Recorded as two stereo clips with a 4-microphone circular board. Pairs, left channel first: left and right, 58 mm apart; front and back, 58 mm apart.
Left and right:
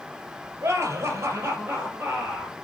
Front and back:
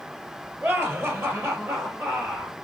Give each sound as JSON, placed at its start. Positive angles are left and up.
{"t": 0.6, "sound": "laughter", "azimuth_deg": -130, "distance_m": 3.0}